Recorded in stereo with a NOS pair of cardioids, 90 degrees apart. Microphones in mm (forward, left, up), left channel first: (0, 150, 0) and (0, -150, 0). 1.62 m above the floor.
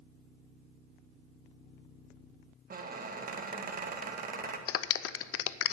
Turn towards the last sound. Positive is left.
turn(degrees=55)